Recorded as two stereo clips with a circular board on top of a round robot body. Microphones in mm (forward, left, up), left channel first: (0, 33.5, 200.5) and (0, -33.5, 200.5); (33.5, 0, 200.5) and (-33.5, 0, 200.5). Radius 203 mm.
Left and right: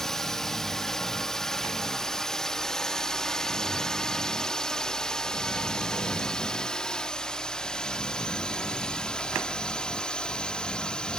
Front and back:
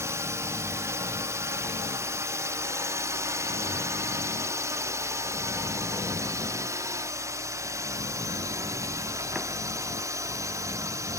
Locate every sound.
0.0 s a drone: 170° left; by 11.2 s 165° left